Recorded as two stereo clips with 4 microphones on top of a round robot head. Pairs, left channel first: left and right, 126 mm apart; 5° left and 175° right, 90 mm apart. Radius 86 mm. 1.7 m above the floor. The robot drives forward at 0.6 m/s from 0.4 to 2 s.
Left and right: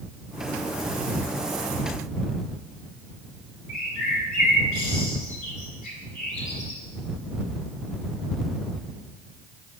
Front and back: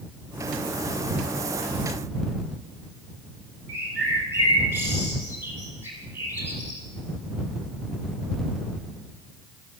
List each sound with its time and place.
3.7 s a bird: 125° left, 3.5 m